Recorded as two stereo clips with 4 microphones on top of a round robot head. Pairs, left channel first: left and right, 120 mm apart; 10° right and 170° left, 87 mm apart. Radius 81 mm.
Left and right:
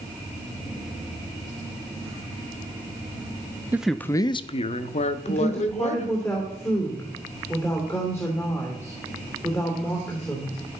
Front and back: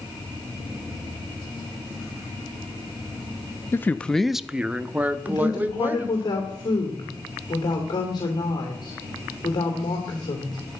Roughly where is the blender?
I don't hear a blender.